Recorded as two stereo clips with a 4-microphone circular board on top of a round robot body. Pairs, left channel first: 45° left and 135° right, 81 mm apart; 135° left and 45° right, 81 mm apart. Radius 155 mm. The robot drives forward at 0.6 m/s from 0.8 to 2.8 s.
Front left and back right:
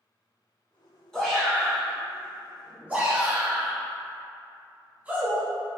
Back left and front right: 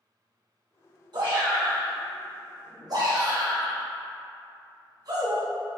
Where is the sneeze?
I don't hear a sneeze.